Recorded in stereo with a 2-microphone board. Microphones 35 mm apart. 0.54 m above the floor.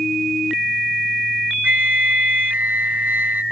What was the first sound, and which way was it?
A flute, 55° right (ahead or behind).